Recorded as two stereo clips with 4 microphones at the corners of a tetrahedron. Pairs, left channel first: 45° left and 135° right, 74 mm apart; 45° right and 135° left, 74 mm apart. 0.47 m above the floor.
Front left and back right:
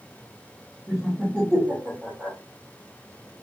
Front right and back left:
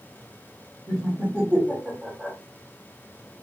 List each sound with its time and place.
0.9 s laughter: 160° left, 1.2 m